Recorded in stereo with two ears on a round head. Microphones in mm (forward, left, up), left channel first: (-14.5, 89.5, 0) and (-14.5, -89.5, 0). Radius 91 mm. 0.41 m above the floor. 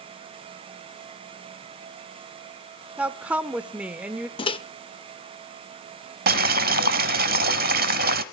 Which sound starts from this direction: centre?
A woman speaking, at 3.0 s.